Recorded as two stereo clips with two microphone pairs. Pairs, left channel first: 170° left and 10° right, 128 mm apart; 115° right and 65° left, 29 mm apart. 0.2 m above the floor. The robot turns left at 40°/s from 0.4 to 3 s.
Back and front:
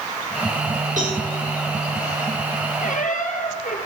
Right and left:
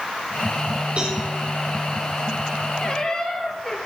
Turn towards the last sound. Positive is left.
turn(degrees=170)